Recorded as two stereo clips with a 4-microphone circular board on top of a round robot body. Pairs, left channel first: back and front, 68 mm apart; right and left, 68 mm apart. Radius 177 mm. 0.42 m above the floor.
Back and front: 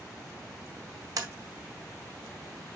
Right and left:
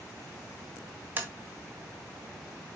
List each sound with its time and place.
1.2 s tapping: 25° left, 1.7 m